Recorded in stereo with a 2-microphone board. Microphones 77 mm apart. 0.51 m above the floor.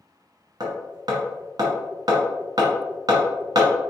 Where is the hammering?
55° right (ahead or behind), 1.7 m.